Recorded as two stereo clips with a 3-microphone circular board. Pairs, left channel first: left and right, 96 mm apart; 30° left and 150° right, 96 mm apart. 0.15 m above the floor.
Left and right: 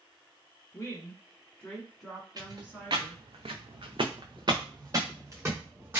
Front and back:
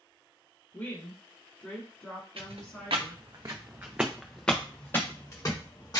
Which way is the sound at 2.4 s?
135° right.